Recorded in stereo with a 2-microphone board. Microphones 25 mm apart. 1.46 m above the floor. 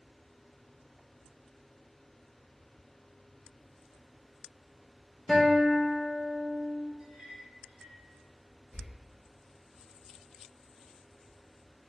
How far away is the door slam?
About 1.7 m.